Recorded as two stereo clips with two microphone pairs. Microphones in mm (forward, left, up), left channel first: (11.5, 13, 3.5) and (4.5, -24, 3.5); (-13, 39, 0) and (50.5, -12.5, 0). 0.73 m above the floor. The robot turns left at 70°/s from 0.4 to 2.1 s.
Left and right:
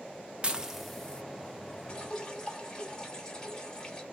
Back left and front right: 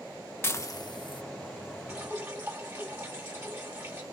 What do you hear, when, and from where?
0.4 s dishes clattering: 160° right, 0.8 m; by 1.2 s 145° left, 0.8 m
1.9 s dripping: 35° left, 1.4 m; by 4.0 s 20° left, 1.4 m